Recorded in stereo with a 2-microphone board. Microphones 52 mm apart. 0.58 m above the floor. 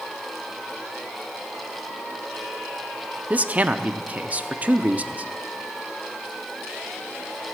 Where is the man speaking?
30° right (ahead or behind), 0.6 m.